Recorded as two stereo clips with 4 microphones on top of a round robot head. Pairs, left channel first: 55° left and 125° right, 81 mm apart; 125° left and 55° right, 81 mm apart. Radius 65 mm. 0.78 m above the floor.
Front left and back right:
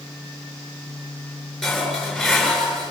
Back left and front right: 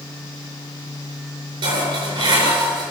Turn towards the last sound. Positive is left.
turn(degrees=-35)